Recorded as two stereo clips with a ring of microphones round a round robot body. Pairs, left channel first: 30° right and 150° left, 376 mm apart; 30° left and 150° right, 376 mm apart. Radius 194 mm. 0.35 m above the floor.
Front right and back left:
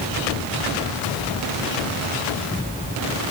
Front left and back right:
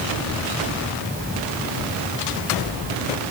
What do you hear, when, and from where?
Only background noise.